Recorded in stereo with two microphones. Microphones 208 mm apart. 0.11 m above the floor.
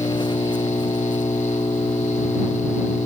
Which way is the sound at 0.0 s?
20° left (ahead or behind).